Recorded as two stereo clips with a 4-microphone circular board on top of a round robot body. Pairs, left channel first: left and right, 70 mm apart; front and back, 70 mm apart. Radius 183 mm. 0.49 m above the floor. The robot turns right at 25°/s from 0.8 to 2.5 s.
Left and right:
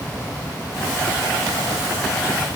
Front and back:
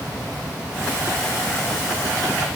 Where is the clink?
I don't hear a clink.